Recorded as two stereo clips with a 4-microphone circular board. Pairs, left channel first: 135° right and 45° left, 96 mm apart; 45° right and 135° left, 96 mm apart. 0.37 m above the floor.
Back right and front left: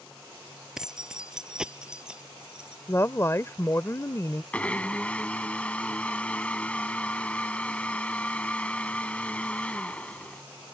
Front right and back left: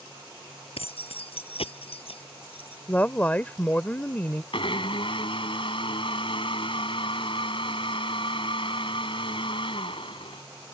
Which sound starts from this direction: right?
A woman speaking, at 2.9 s.